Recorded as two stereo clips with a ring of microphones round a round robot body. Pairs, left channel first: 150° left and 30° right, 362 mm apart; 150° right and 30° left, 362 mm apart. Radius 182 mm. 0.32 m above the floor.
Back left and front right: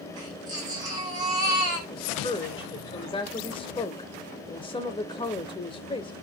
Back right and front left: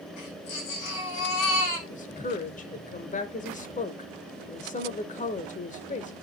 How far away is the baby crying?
About 6.5 m.